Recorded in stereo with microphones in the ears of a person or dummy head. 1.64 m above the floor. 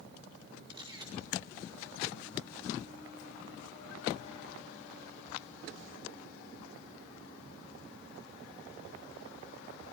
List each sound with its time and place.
0.7 s a camera shutter: 25° right (ahead or behind), 4.5 m